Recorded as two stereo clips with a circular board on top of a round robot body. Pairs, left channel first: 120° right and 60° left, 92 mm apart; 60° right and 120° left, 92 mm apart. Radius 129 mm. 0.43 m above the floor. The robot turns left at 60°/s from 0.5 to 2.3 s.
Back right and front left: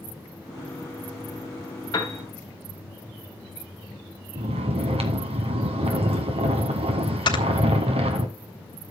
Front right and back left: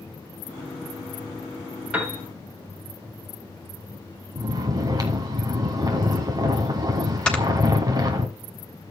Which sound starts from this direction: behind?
A piano, at 1.9 s.